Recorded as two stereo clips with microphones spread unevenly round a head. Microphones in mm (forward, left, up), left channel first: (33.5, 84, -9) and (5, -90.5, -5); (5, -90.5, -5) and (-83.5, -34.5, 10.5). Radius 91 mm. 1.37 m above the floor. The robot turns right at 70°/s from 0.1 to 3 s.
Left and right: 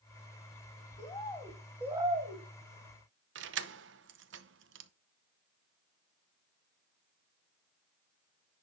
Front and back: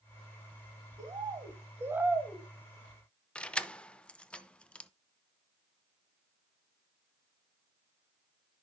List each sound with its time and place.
1.0 s a bird: 130° left, 1.5 m; by 2.4 s 130° right, 1.5 m
3.4 s keys jangling: 115° right, 0.8 m